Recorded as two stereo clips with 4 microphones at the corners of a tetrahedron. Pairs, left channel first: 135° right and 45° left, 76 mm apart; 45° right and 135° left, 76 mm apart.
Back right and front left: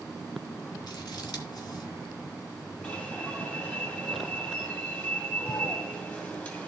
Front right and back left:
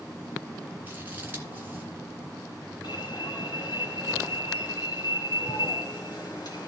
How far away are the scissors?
About 2.5 m.